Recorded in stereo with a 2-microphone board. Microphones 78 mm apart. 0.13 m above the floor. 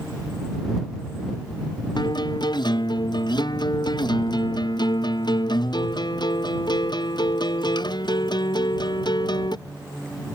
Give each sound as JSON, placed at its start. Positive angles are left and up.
{"t": 2.0, "sound": "a guitar", "side_deg": 65}